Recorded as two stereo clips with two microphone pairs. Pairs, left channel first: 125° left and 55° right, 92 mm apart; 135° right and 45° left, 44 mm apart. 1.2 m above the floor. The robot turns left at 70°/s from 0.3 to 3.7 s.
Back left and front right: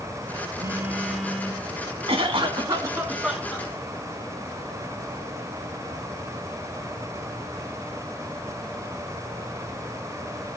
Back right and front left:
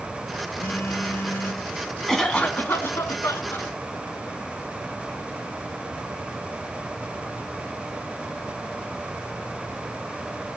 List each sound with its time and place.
0.6 s a phone buzzing: 105° right, 0.9 m; by 1.6 s 175° right, 0.9 m
2.1 s a cough: 60° right, 2 m; by 3.7 s 175° right, 2 m